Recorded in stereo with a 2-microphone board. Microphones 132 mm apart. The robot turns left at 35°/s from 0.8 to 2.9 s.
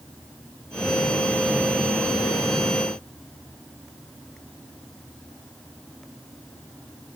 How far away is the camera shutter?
I don't hear a camera shutter.